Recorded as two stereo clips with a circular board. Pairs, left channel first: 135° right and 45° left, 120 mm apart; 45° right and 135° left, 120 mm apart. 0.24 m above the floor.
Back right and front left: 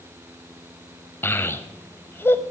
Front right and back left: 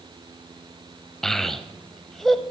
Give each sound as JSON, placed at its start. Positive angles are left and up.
{"t": 1.2, "sound": "a child speaking", "azimuth_deg": -125, "distance_m": 0.7}